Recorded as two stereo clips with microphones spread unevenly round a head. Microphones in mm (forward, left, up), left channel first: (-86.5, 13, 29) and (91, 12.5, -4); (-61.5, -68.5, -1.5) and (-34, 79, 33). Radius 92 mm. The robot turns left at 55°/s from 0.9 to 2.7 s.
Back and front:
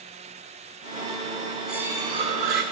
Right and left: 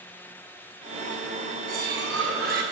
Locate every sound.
1.7 s cutlery clinking: 90° left, 1.3 m; by 2.6 s 35° left, 1.3 m